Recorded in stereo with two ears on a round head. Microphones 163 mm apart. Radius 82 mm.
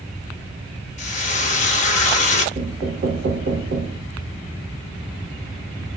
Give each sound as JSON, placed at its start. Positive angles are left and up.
{"t": 1.0, "sound": "frying", "side_deg": 40, "distance_m": 0.8}
{"t": 2.5, "sound": "knocking", "side_deg": -50, "distance_m": 0.6}